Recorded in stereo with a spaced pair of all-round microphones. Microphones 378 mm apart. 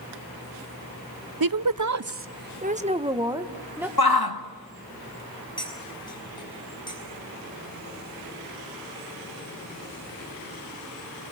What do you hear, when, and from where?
1.4 s a woman speaking: 65° right (ahead or behind), 0.6 m; by 3.9 s 5° right (ahead or behind), 1.7 m
4.0 s a shout: 75° left (ahead or behind), 1.9 m
5.6 s cutlery clinking: 10° left (ahead or behind), 6 m